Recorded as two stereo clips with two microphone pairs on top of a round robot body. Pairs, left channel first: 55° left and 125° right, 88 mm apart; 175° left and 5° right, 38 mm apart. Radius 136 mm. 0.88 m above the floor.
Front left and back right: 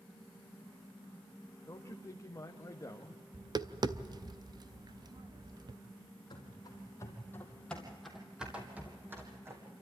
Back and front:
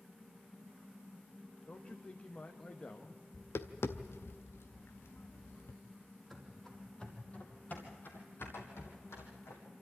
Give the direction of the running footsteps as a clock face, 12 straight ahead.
9 o'clock.